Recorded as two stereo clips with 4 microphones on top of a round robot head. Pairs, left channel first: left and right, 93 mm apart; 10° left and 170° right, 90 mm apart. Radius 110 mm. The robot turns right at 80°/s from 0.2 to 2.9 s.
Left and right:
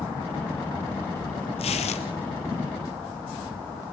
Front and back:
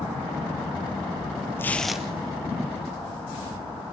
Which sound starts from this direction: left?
Tearing paper, at 1.6 s.